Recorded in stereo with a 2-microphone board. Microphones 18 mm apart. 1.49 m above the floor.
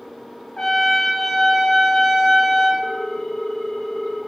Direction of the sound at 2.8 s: 20° left (ahead or behind).